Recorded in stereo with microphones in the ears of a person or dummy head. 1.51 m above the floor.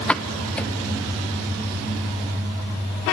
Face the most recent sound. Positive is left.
turn(degrees=5)  # may be behind; listen again after turning